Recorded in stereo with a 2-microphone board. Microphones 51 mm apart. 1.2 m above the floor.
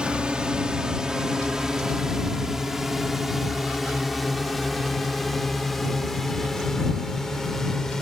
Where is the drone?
20° right (ahead or behind); by 8.0 s 5° left (ahead or behind).